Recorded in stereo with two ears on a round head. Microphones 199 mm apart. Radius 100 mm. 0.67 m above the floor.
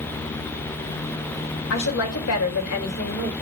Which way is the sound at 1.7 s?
60° left (ahead or behind).